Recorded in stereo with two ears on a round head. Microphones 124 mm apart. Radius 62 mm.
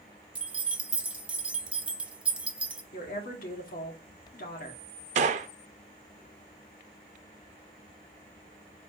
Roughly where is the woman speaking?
Left.